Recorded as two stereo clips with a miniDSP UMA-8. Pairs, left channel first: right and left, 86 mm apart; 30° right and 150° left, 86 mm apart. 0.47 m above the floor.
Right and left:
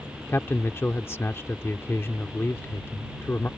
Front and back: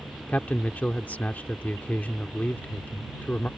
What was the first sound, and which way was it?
A man speaking, 80° right.